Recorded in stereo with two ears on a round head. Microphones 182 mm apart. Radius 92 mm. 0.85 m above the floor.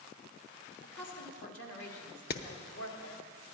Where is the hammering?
50° left (ahead or behind), 0.6 m.